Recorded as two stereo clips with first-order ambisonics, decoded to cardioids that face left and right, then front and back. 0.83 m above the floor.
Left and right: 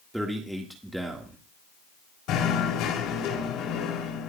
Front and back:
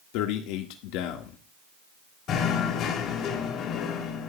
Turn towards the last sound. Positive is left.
turn(degrees=50)